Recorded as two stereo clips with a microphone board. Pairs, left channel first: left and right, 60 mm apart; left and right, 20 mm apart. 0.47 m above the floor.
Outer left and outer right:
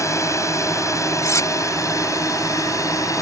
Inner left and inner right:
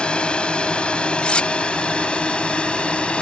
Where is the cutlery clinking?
70° left (ahead or behind).